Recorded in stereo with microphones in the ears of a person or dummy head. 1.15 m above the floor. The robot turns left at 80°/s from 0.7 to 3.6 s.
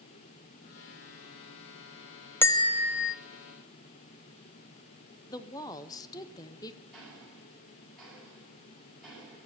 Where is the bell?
165° left, 0.5 m; by 3.1 s 105° left, 0.5 m.